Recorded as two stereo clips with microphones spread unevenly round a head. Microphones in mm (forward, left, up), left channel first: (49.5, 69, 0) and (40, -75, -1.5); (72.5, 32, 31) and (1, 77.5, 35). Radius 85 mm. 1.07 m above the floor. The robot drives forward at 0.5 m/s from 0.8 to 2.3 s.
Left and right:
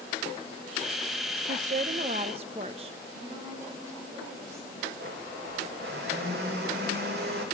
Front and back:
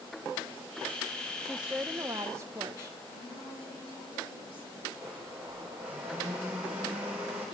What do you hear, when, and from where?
1.4 s a woman speaking: 120° right, 0.6 m; by 3.0 s 150° right, 0.9 m
3.1 s a woman speaking: 25° right, 5 m
5.0 s a blender: 135° right, 2.5 m